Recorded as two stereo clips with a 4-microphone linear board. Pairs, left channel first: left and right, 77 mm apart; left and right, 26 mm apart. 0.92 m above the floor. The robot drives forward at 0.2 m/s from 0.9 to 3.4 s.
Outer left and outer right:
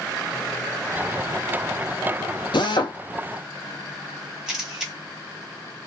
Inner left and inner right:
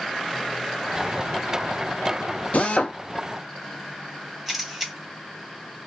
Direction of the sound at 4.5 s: 5° right (ahead or behind).